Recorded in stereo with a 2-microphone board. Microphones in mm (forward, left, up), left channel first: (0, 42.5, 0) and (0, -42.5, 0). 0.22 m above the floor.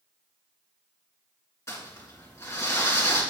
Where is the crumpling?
35° left (ahead or behind), 3 m.